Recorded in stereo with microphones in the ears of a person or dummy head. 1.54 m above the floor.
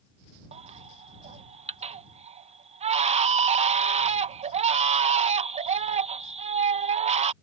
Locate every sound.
0.5 s a baby crying: 35° right (ahead or behind)